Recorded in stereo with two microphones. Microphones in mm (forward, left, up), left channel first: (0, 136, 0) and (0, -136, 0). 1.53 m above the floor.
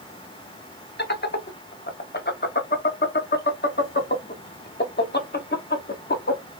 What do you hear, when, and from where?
1.0 s laughter: 40° left (ahead or behind), 0.7 m